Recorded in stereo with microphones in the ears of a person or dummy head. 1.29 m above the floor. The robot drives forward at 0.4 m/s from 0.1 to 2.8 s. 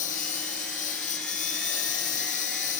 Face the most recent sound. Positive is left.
turn(degrees=45)  # may be behind; listen again after turning